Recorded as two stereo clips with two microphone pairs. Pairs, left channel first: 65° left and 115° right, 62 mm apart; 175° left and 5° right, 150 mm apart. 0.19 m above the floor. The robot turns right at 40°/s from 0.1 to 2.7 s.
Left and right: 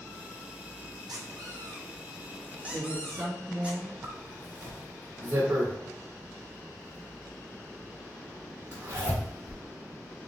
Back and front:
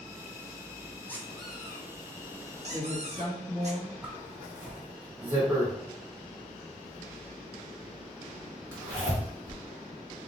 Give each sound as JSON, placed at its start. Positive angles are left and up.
{"t": 1.1, "sound": "a squeak", "azimuth_deg": -110, "distance_m": 1.0}
{"t": 2.7, "sound": "a woman speaking", "azimuth_deg": 150, "distance_m": 2.0}
{"t": 4.0, "sound": "a zipper", "azimuth_deg": -80, "distance_m": 1.7}